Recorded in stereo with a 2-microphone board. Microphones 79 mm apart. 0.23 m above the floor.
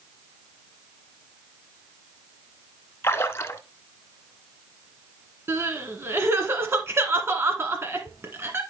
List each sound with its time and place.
3.0 s a splash: 35° left (ahead or behind), 0.7 m
5.5 s crying: 35° right (ahead or behind), 1.5 m